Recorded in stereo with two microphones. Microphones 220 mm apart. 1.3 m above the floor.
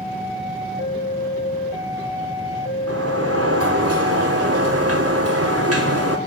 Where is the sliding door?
85° right, 4 m.